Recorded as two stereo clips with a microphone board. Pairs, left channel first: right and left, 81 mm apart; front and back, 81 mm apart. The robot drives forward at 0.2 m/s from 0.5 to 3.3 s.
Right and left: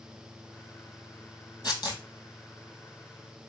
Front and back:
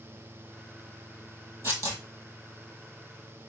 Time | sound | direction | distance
1.6 | tearing paper | 125° right | 1.8 m